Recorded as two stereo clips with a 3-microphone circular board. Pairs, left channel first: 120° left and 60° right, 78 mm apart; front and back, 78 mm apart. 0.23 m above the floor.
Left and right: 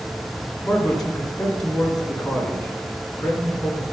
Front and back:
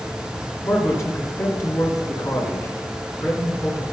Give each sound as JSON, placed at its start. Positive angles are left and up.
{"t": 0.6, "sound": "a man speaking", "azimuth_deg": 35, "distance_m": 2.5}